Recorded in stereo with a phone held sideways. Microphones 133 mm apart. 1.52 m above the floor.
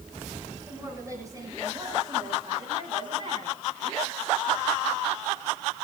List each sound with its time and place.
0.7 s a woman speaking: 25° right (ahead or behind), 9 m; by 3.6 s 45° right (ahead or behind), 7 m